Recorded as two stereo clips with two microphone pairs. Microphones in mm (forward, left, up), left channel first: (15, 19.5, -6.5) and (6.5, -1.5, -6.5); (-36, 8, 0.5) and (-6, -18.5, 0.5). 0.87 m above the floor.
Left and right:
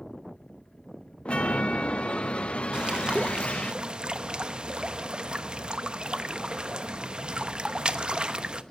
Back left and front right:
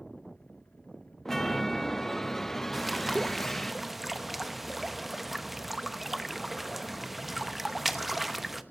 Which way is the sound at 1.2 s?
60° left.